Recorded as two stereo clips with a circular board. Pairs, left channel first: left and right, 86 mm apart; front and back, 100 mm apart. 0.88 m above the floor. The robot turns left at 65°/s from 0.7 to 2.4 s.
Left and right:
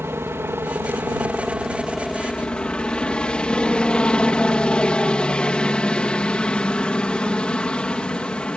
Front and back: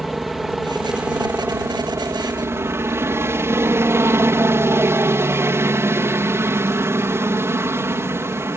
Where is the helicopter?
95° right; by 8.6 s 155° left.